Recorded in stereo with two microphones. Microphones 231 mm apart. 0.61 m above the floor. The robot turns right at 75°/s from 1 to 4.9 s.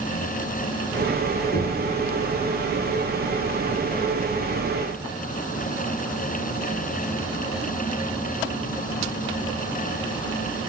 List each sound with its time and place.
1.5 s knocking: 45° left (ahead or behind), 6 m; by 1.8 s 25° left (ahead or behind), 6 m